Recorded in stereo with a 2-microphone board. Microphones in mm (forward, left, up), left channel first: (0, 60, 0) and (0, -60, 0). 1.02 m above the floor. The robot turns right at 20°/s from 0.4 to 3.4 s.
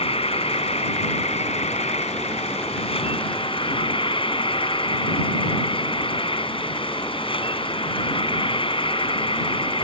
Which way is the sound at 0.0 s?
65° left.